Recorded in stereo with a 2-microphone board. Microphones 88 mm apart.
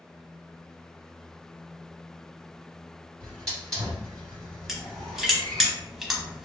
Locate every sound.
3.2 s a hiss: 5° left (ahead or behind), 1.7 m
4.7 s crushing: 5° right (ahead or behind), 0.8 m